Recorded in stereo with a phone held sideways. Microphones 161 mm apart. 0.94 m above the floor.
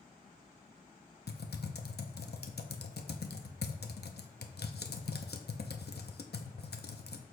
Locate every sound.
1.3 s typing on a keyboard: 85° left, 0.7 m